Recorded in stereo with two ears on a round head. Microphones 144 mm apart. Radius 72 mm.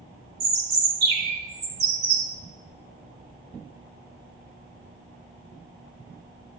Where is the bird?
70° right (ahead or behind), 3 m.